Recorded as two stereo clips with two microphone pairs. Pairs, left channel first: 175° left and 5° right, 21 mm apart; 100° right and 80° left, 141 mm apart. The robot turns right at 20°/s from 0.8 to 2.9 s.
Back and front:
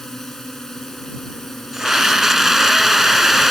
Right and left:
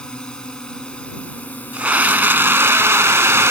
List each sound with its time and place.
0.0 s a drone: 170° right; by 3.5 s 130° right
1.7 s a scream: 20° left; by 3.5 s 40° left